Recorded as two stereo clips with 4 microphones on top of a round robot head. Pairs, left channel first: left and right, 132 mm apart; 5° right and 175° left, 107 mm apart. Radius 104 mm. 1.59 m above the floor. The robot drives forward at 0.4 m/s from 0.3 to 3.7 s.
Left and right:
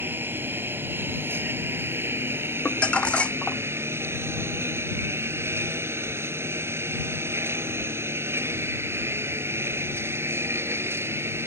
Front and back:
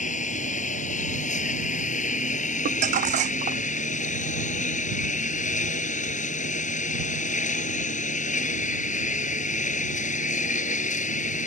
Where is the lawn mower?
10° right; by 11.5 s 15° right.